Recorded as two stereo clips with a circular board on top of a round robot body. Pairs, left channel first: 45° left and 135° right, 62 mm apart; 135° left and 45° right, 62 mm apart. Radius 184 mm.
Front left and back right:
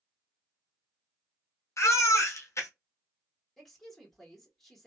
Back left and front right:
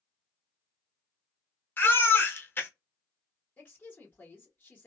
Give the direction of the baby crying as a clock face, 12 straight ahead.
9 o'clock.